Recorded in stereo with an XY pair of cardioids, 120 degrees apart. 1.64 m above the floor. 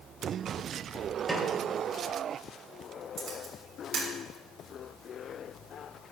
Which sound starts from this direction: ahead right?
A camera shutter, at 3.2 s.